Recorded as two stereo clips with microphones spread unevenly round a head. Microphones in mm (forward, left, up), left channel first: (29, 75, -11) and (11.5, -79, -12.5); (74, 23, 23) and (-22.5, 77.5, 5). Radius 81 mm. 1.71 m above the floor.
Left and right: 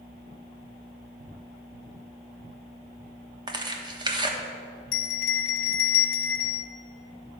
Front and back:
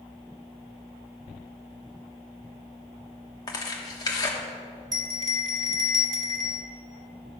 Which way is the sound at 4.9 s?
95° left.